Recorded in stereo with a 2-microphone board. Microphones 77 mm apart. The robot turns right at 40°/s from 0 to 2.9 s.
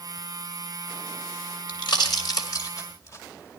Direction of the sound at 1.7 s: 70° left (ahead or behind).